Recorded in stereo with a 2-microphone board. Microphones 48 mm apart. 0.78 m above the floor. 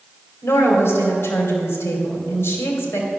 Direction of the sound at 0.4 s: 60° left (ahead or behind).